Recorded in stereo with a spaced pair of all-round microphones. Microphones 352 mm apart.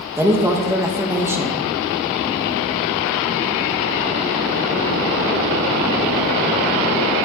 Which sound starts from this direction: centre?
A woman speaking, at 0.2 s.